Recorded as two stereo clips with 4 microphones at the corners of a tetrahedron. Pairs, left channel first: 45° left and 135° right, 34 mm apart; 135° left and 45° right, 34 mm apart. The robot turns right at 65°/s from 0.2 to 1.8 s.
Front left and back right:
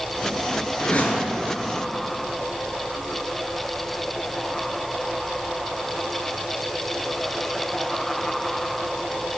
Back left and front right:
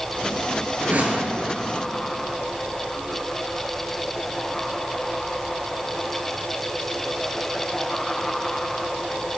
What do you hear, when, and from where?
0.8 s a whoosh: 10° right, 1.0 m; by 1.3 s 25° left, 1.0 m